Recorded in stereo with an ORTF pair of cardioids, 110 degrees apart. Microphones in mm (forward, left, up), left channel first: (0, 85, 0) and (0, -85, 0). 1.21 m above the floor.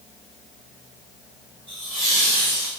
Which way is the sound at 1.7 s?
30° right.